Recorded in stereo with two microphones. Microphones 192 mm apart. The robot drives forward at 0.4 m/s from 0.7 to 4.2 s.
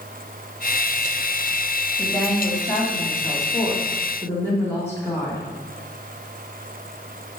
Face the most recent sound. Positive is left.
turn(degrees=10)  # may be behind; listen again after turning